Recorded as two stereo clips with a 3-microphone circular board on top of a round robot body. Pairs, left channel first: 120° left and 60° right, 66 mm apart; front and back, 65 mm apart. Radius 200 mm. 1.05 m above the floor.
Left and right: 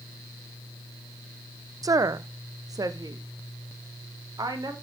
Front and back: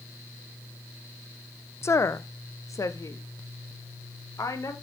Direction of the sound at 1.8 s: 45° right.